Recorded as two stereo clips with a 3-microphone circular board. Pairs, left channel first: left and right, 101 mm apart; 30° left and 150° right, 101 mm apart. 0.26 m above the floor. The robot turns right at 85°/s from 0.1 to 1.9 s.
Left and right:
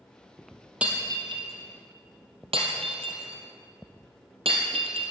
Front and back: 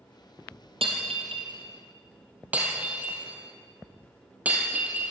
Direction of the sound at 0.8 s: 165° right.